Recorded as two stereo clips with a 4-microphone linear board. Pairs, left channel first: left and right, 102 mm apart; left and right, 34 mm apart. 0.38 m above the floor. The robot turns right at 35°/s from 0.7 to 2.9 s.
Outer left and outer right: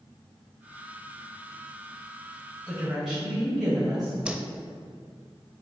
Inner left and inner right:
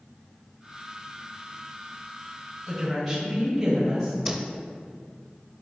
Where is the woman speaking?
Centre (ahead or behind), 1.8 m; by 4.1 s 5° right (ahead or behind), 1.8 m.